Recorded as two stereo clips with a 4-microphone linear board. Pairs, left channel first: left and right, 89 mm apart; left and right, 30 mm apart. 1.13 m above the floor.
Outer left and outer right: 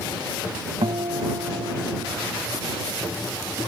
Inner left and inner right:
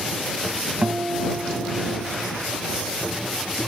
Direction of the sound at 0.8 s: 75° right (ahead or behind).